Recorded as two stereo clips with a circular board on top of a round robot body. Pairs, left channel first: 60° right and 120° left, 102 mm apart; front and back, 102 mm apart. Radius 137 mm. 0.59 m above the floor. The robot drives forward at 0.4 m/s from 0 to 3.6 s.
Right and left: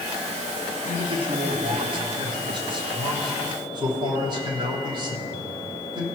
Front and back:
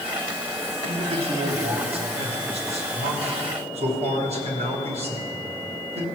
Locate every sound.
0.8 s a man speaking: 155° left, 1.8 m; by 6.0 s 165° left, 3 m